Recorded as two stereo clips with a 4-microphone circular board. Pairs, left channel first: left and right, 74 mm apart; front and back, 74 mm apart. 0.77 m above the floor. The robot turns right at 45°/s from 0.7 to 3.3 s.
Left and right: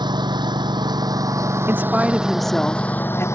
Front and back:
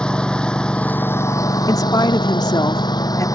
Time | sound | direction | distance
0.0 | a lawn mower | 80° right | ?
1.7 | a woman speaking | 30° right | ?